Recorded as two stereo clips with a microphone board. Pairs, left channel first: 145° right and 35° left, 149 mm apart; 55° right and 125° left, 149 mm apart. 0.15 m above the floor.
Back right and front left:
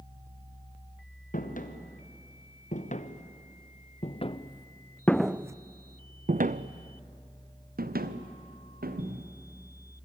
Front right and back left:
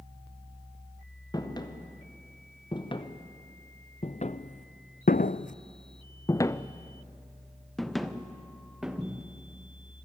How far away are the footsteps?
About 2.5 m.